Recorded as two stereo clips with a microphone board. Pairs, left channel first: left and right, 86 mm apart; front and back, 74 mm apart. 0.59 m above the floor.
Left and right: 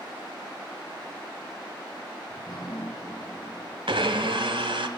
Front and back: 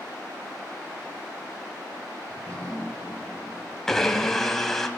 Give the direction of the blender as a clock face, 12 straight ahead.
3 o'clock.